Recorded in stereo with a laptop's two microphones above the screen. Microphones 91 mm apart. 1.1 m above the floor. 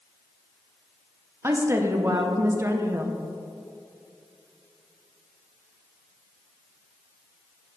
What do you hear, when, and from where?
1.4 s a woman speaking: 25° right (ahead or behind), 0.6 m